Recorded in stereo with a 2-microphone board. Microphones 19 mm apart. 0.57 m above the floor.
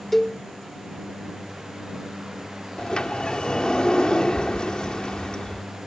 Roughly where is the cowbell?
Centre.